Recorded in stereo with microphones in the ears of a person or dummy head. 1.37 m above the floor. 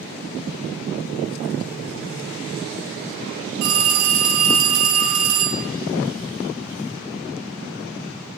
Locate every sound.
3.6 s a phone ringing: 85° right, 3.5 m